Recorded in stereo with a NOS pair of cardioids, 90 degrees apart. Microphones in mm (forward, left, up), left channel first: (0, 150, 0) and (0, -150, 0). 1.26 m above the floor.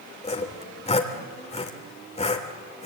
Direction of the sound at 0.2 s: 20° left.